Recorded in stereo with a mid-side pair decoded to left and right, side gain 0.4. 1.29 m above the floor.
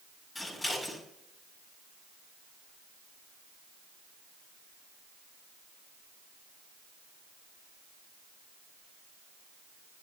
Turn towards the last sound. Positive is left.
turn(degrees=25)